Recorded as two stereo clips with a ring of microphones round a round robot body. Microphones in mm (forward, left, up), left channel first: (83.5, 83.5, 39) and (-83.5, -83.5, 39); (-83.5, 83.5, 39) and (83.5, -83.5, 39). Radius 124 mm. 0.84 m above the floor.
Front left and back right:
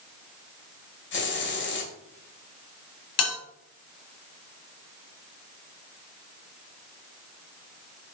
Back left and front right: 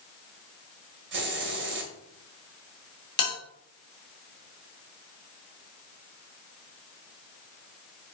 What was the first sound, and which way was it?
A hiss, straight ahead.